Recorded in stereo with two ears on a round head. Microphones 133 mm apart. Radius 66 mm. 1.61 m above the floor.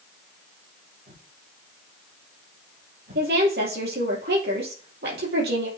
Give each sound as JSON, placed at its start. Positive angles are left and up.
{"t": 1.1, "sound": "a whoosh", "side_deg": -70, "distance_m": 3.5}
{"t": 3.1, "sound": "a woman speaking", "side_deg": -75, "distance_m": 4.0}